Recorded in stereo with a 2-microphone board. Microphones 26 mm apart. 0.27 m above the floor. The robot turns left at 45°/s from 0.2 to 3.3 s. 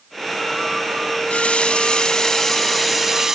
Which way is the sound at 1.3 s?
70° left.